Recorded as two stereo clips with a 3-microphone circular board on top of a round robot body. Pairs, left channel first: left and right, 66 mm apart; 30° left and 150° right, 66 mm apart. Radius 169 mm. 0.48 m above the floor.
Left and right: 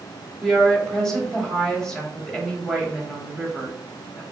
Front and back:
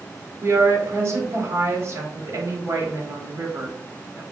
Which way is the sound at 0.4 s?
170° left.